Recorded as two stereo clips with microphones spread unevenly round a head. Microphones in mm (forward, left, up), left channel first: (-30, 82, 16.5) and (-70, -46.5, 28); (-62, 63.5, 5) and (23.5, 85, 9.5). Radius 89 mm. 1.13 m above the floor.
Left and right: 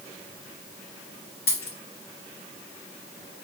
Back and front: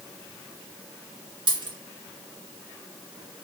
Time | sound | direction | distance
1.5 | a dropped coin | 30° left | 2.5 m